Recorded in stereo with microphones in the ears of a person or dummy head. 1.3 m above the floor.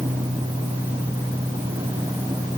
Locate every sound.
Only background noise.